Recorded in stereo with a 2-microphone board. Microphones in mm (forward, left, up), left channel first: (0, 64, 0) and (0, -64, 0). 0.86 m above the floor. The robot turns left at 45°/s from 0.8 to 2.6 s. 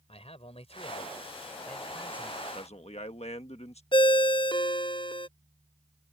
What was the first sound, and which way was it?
A man speaking, 50° left.